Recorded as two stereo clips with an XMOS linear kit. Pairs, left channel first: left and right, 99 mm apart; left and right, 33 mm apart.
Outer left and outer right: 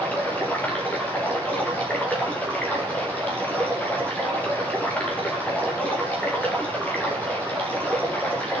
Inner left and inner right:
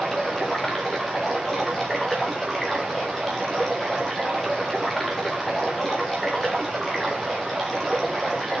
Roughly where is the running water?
Centre.